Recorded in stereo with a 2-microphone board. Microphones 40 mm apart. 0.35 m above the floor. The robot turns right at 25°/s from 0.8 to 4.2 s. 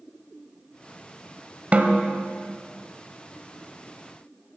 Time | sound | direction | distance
1.7 | a snare drum | 35° right (ahead or behind) | 1.1 m